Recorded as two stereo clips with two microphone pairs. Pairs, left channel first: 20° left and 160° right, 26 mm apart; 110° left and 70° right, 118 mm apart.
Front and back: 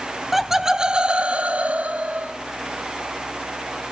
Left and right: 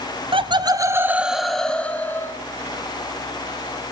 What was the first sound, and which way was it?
Laughter, 80° right.